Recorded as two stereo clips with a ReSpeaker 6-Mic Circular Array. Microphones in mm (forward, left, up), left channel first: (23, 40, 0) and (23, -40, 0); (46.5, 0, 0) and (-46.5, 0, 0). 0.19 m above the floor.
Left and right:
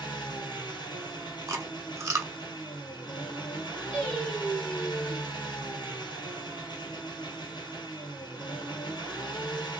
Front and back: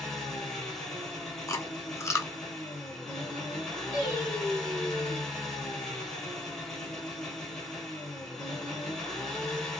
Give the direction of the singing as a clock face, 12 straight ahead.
7 o'clock.